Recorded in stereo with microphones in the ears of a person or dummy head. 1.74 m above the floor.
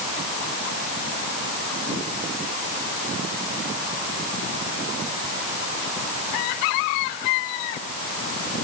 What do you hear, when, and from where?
Only background noise.